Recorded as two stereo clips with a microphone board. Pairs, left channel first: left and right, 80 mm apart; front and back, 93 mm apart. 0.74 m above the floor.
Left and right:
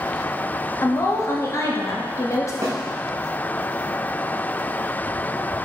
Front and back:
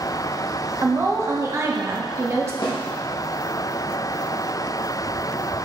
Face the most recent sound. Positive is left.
turn(degrees=-40)